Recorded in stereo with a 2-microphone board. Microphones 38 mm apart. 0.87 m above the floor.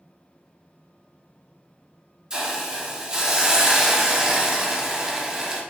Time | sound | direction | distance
2.3 | a hiss | 20° right (ahead or behind) | 0.8 m